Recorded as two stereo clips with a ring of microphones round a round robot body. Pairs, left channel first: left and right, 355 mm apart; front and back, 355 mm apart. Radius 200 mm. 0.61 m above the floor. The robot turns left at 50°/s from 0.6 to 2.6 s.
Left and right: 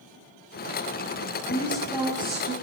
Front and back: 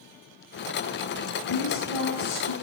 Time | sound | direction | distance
1.4 | a woman speaking | 15° left | 9 m